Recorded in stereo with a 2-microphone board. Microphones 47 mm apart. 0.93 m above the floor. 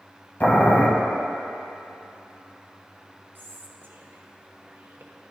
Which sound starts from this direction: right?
Whispering, at 3.4 s.